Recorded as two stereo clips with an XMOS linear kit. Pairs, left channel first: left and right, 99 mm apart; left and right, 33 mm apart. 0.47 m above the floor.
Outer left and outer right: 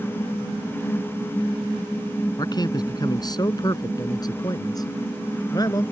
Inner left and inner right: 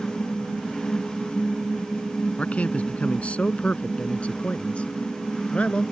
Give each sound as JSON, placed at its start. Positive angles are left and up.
{"t": 2.4, "sound": "a man speaking", "side_deg": 45}